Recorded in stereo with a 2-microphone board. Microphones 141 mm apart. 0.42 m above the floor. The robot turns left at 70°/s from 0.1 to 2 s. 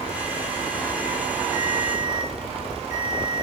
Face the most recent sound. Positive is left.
turn(degrees=110)